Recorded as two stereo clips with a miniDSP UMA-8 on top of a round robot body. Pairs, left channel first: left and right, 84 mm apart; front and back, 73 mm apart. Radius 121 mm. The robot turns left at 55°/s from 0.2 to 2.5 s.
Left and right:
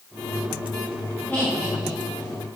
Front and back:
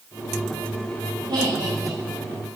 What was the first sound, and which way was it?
Laughter, 165° left.